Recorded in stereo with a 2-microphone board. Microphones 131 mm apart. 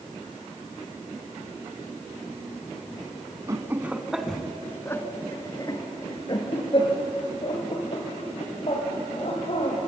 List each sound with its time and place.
3.5 s laughter: 25° right (ahead or behind), 1.1 m; by 9.8 s 50° left (ahead or behind), 4.5 m